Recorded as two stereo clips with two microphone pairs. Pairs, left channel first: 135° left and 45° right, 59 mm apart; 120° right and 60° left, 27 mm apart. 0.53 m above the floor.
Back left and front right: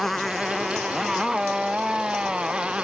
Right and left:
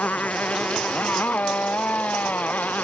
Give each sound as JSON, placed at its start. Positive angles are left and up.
{"t": 0.0, "sound": "a motorcycle", "azimuth_deg": -140}